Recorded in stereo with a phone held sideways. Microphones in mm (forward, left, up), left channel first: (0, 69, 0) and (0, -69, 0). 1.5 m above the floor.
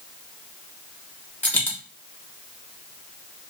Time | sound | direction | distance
1.4 | a dropped coin | 15° left (ahead or behind) | 0.8 m